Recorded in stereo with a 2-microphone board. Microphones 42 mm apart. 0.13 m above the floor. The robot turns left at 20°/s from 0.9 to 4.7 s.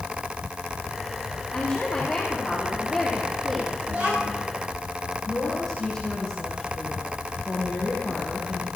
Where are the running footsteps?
I don't hear running footsteps.